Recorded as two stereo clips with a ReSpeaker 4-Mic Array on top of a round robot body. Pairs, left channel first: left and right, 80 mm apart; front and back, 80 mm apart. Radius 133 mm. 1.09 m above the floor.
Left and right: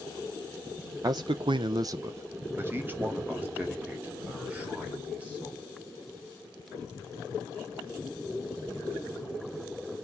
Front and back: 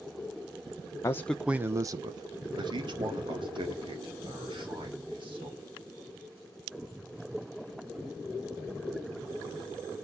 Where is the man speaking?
50° right, 0.7 m; by 5.7 s 170° right, 5.5 m.